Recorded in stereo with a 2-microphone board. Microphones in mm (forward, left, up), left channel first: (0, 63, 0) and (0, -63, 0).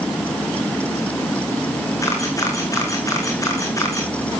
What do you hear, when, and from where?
2.0 s a camera shutter: 25° left (ahead or behind), 4.5 m